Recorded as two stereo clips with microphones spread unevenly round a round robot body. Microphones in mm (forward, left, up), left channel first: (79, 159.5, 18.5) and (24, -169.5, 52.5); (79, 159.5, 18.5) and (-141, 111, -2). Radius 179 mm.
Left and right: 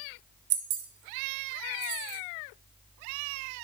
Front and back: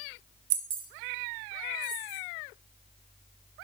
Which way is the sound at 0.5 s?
160° right.